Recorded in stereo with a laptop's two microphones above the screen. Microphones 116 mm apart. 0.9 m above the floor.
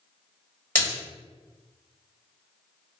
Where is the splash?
15° left (ahead or behind), 1.8 m.